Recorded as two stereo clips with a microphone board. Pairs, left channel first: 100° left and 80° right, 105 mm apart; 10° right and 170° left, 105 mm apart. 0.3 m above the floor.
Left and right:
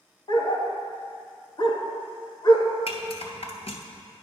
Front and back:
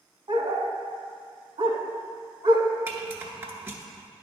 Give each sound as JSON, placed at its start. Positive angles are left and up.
{"t": 0.3, "sound": "a dog barking", "azimuth_deg": 140, "distance_m": 0.9}
{"t": 2.9, "sound": "a rattle", "azimuth_deg": 100, "distance_m": 0.9}